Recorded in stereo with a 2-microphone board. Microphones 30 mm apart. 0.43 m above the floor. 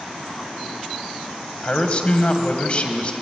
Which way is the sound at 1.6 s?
40° left (ahead or behind).